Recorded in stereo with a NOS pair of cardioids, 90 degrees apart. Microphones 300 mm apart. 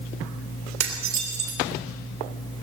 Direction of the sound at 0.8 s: 65° right.